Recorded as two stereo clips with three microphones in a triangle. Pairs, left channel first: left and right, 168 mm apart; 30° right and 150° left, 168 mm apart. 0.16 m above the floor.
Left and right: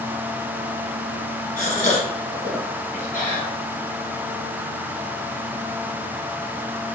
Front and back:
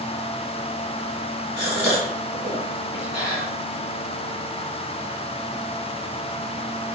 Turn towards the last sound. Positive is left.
turn(degrees=75)